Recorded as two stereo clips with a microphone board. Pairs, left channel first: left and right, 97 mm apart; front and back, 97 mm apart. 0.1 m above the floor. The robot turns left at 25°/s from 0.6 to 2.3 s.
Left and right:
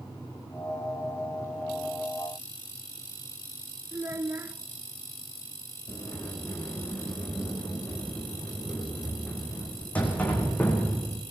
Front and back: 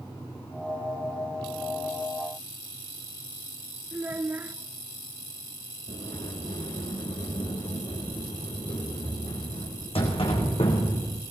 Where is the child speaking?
130° right, 0.7 m.